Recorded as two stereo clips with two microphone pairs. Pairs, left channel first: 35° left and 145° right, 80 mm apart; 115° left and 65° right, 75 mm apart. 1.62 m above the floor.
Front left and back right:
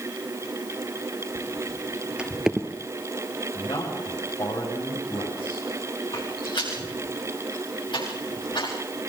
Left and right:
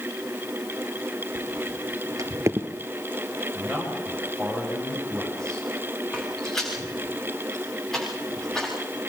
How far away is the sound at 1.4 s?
About 3 m.